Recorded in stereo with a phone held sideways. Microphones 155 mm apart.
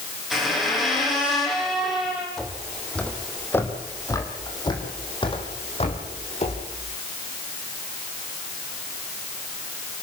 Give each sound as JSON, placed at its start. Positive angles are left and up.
{"t": 0.3, "sound": "a squeak", "side_deg": 0, "distance_m": 6.5}
{"t": 2.4, "sound": "footsteps", "side_deg": 0, "distance_m": 3.0}